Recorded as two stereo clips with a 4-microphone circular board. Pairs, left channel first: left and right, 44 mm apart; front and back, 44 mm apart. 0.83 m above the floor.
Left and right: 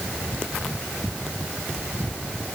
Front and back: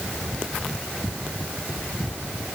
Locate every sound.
Only background noise.